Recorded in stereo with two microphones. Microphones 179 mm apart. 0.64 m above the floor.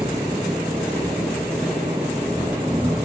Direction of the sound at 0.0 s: 10° right (ahead or behind).